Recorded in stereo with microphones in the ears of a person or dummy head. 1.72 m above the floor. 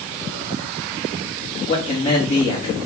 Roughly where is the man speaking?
Left.